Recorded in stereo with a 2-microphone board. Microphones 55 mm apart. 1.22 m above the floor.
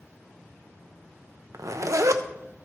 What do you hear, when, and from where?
1.5 s a zipper: 70° right (ahead or behind), 0.5 m